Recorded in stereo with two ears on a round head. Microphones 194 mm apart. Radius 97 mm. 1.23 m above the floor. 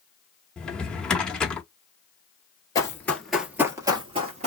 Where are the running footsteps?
15° left (ahead or behind), 1.3 m; by 4.5 s 35° right (ahead or behind), 1.4 m.